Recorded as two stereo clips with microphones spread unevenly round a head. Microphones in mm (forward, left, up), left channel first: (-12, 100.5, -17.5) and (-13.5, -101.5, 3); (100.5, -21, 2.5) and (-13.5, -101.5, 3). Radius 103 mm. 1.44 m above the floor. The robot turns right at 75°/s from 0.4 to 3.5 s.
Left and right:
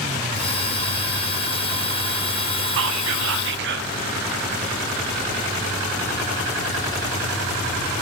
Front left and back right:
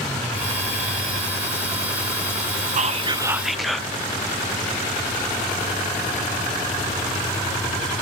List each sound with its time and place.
2.8 s whispering: 110° right, 0.6 m; by 3.9 s 55° right, 0.6 m